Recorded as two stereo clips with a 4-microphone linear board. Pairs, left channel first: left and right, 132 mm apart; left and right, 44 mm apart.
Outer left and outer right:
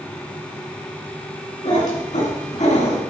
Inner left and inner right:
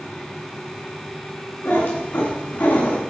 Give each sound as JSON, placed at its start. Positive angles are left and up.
{"t": 1.6, "sound": "a cat meowing", "side_deg": 70, "distance_m": 3.5}